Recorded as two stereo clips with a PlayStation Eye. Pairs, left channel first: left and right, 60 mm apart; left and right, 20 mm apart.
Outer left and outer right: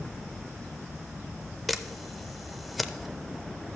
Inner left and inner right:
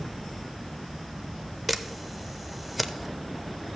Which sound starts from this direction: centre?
A camera shutter, at 1.7 s.